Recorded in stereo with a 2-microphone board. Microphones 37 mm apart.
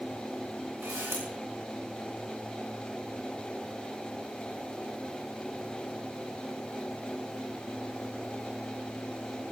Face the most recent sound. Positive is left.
turn(degrees=-75)  # may be behind; listen again after turning